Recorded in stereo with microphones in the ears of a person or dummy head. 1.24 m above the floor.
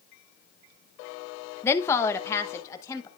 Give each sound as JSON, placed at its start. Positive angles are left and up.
{"t": 1.6, "sound": "a woman speaking", "side_deg": 15, "distance_m": 0.9}